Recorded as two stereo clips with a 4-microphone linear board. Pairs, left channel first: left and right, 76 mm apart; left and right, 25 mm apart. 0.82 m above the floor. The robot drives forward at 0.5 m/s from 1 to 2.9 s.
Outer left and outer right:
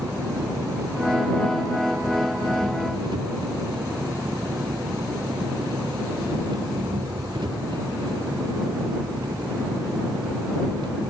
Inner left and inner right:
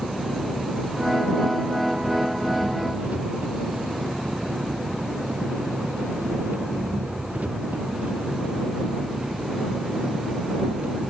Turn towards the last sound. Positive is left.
turn(degrees=-80)